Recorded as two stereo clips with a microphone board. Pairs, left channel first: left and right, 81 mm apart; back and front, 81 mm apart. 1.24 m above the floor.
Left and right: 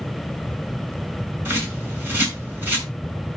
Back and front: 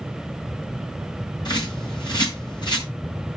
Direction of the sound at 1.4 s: 150° right.